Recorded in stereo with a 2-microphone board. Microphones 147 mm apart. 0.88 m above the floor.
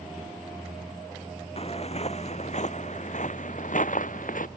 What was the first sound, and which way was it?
Footsteps, 40° left (ahead or behind).